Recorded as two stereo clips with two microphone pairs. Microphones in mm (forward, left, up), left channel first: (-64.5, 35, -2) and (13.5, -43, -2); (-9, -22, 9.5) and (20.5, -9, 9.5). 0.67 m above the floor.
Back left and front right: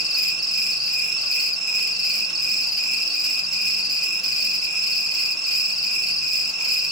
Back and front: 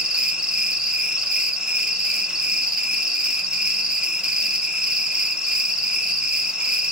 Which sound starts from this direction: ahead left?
An insect, at 0.0 s.